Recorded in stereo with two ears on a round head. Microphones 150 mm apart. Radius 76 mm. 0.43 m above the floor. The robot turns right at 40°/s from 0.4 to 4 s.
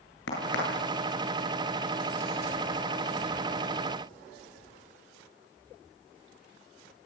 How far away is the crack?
About 9 m.